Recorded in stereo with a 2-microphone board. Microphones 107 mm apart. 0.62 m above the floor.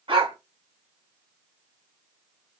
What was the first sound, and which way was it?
A dog barking, 60° right (ahead or behind).